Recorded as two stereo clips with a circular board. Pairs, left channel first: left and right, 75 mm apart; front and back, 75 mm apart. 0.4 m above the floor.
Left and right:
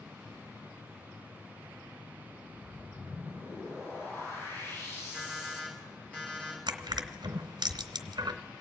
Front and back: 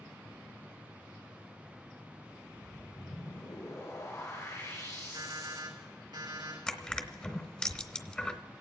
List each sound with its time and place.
2.4 s a whoosh: 40° left, 5.5 m
5.1 s an alarm clock: 165° left, 4 m
6.7 s crushing: 75° right, 0.9 m